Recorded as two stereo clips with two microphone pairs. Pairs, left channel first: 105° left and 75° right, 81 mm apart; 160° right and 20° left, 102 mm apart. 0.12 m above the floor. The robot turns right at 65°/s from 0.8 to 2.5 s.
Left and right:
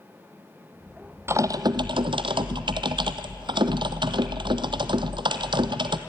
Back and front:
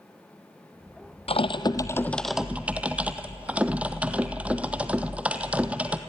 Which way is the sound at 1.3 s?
135° right.